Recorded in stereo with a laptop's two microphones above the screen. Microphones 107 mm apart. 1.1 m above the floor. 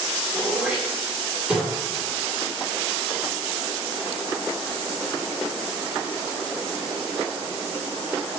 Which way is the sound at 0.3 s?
15° right (ahead or behind).